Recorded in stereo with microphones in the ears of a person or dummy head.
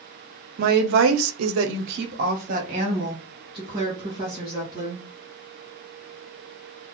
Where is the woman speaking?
45° right (ahead or behind), 0.6 m; by 5.0 s 25° right (ahead or behind), 2 m.